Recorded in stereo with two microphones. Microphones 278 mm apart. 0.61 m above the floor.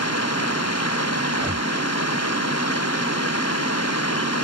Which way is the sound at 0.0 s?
60° left (ahead or behind).